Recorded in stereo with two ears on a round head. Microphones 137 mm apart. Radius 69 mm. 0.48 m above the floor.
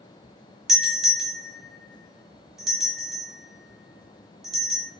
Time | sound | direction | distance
0.7 | a doorbell | centre (ahead or behind) | 1.8 m